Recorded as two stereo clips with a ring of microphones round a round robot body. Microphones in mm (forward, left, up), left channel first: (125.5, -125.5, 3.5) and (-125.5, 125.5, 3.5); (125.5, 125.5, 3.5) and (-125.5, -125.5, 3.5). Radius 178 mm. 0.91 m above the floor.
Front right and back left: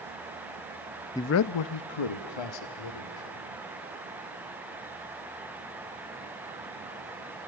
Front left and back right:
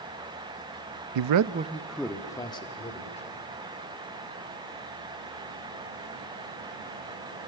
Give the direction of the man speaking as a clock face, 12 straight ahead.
4 o'clock.